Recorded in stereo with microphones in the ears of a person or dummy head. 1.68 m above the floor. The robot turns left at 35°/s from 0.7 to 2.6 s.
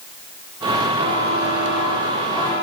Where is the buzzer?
150° right, 10 m; by 2.6 s 150° left, 10 m.